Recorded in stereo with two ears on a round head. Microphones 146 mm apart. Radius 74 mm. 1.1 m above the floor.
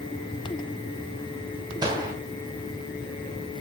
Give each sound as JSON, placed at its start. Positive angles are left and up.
{"t": 1.8, "sound": "a gunshot", "side_deg": -30, "distance_m": 3.0}